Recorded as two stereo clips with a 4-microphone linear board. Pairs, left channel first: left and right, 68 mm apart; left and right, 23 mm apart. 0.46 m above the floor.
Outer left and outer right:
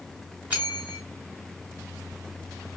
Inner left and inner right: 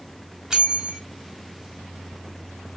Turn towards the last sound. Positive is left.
turn(degrees=-20)  # may be behind; listen again after turning